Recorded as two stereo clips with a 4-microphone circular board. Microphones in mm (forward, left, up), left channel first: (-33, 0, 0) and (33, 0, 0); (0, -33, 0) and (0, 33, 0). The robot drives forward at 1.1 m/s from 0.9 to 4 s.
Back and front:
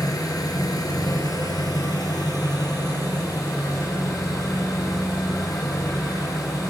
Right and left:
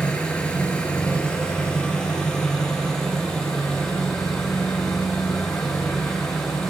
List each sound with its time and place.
0.0 s an engine running: 160° right, 4 m; by 6.7 s 170° right, 7 m